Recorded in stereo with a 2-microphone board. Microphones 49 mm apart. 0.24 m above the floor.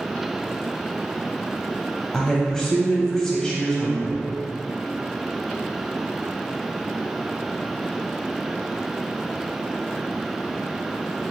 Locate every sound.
2.1 s a woman speaking: 10° left (ahead or behind), 1.1 m